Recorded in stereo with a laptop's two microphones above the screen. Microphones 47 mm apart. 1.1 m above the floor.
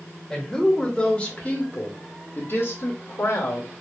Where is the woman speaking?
10° left (ahead or behind), 2 m; by 3.7 s 70° left (ahead or behind), 2 m.